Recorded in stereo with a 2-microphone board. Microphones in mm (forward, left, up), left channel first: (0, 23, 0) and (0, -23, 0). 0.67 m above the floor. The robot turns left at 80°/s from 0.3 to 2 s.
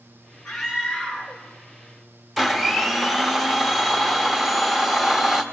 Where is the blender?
5° right (ahead or behind), 1.0 m.